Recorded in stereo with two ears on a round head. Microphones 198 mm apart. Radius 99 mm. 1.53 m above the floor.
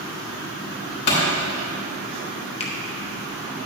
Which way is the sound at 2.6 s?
25° left (ahead or behind).